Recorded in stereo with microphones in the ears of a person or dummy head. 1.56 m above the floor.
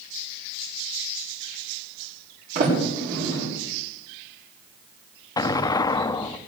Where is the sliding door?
50° right (ahead or behind), 6.5 m.